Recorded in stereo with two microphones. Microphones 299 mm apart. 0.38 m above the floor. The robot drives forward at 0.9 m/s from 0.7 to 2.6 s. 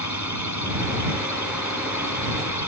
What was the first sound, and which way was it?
A drone, 65° left (ahead or behind).